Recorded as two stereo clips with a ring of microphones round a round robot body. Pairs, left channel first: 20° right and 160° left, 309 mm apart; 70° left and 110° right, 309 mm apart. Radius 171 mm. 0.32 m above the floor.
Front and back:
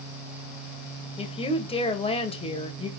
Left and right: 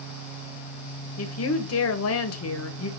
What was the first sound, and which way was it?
A woman speaking, 45° left.